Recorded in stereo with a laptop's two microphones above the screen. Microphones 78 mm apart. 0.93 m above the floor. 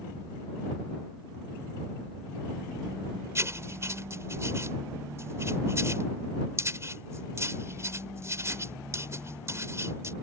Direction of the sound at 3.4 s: 35° right (ahead or behind).